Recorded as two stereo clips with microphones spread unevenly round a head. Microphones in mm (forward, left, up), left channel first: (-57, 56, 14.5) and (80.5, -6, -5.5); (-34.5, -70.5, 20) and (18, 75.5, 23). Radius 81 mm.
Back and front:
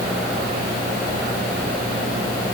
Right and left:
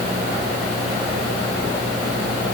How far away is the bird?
No bird in this recording.